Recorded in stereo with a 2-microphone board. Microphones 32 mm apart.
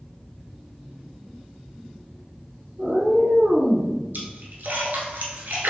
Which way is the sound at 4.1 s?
75° right (ahead or behind).